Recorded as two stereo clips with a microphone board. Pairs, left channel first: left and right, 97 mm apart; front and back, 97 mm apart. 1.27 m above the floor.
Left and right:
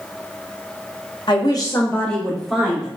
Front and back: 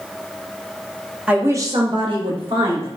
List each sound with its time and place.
1.3 s a woman speaking: 105° left, 0.6 m; by 2.9 s 170° right, 1.1 m